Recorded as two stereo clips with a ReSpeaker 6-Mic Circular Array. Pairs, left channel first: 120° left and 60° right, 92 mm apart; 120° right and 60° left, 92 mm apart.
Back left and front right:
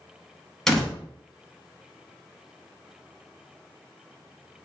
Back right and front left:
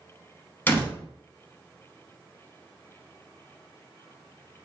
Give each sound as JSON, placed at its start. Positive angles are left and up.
{"t": 0.7, "sound": "a door slam", "azimuth_deg": -165, "distance_m": 0.8}